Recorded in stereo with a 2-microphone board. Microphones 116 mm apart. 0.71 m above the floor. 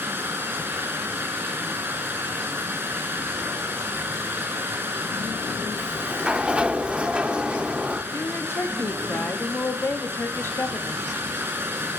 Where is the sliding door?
10° right (ahead or behind), 0.5 m.